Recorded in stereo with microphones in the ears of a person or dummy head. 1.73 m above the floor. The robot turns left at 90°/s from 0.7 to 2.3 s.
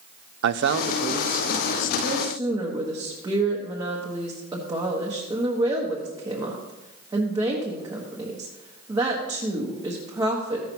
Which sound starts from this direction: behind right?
A man speaking, at 0.4 s.